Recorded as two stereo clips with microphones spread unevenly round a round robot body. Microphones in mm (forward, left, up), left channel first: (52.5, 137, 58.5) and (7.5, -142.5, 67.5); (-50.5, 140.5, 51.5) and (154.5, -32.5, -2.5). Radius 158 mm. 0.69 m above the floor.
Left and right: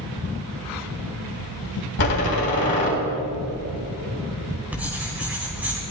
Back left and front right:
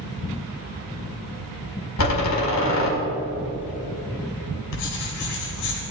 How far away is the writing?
About 4.5 m.